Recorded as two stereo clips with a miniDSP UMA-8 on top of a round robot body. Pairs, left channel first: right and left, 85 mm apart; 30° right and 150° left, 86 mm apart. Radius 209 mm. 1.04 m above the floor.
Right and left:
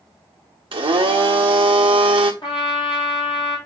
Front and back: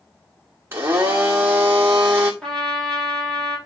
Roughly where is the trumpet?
Behind right.